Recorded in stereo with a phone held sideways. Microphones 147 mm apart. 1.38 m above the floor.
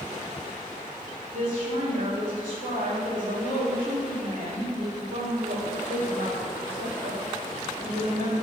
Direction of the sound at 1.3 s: 65° right (ahead or behind).